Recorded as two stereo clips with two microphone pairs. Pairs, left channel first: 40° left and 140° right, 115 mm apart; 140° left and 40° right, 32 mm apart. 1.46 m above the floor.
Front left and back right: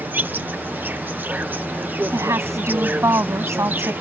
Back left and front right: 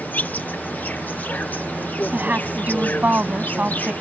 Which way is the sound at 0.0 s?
150° left.